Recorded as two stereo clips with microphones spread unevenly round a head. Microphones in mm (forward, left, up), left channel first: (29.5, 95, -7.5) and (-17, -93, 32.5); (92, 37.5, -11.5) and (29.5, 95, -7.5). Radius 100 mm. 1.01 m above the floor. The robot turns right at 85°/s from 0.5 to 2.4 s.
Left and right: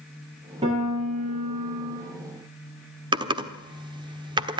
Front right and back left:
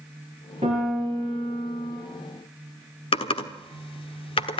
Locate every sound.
0.6 s a piano: 170° right, 9.5 m; by 2.0 s 55° right, 9.5 m
3.1 s typing on a keyboard: 40° right, 1.2 m